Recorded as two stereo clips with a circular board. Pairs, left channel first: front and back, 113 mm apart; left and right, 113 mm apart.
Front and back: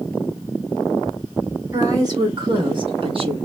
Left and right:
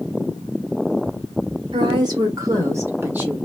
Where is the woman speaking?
125° right, 1.5 m; by 3.4 s 165° right, 1.4 m.